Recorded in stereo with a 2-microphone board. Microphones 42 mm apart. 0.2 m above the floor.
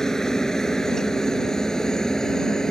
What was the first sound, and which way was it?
A helicopter, 15° left (ahead or behind).